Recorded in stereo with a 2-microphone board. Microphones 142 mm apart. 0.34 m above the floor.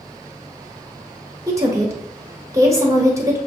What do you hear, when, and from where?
1.5 s a woman speaking: 20° right (ahead or behind), 1.2 m